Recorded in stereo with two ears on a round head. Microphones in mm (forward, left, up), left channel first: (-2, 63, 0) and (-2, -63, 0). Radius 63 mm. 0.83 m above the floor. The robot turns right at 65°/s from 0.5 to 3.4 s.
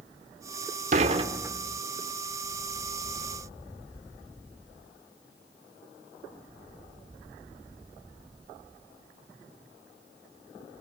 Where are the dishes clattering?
55° right, 1.8 m; by 1.8 s 5° left, 1.8 m.